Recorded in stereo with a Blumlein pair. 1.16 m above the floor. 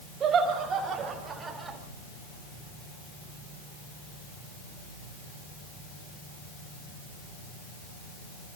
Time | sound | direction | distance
0.2 | laughter | 25° right | 5.5 m